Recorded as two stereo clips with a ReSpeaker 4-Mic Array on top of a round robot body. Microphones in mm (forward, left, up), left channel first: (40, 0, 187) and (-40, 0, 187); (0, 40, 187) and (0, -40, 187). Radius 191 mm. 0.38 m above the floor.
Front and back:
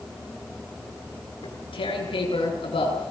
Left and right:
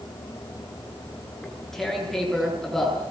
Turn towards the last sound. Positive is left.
turn(degrees=5)